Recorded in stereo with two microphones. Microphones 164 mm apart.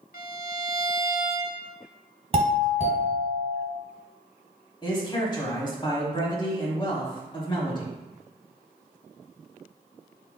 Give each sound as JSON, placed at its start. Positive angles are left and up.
{"t": 0.1, "sound": "a violin", "side_deg": 60, "distance_m": 0.5}
{"t": 2.3, "sound": "a doorbell", "side_deg": -40, "distance_m": 2.0}
{"t": 4.8, "sound": "a man speaking", "side_deg": 30, "distance_m": 1.0}